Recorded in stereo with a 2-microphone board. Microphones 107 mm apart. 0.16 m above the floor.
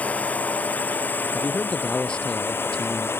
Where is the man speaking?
10° left (ahead or behind).